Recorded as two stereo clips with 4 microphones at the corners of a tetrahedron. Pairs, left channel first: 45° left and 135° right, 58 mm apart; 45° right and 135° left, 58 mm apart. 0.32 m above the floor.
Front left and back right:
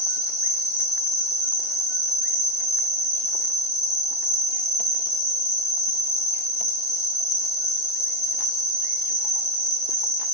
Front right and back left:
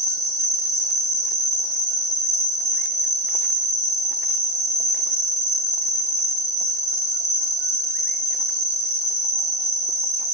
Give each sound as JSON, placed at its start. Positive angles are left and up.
{"t": 0.0, "sound": "an insect", "azimuth_deg": -110, "distance_m": 1.8}